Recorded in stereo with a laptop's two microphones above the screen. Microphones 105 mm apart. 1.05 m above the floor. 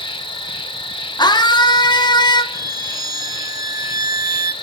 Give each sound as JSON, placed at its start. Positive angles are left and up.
{"t": 0.0, "sound": "an insect", "side_deg": 55, "distance_m": 1.1}
{"t": 1.2, "sound": "a scream", "side_deg": 45, "distance_m": 0.7}
{"t": 2.5, "sound": "a violin", "side_deg": -35, "distance_m": 0.6}